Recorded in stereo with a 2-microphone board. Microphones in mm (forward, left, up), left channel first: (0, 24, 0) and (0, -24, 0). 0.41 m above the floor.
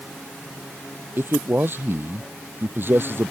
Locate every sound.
1.2 s a man speaking: 45° right (ahead or behind)